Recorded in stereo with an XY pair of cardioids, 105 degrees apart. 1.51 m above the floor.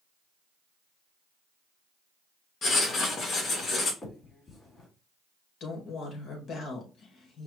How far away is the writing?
About 1.7 m.